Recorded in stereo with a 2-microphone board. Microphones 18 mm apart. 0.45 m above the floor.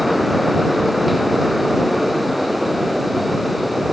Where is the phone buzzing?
No phone buzzing in this recording.